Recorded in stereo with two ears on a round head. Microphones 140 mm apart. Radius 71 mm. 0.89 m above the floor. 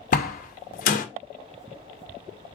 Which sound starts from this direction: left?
A door slam, at 0.1 s.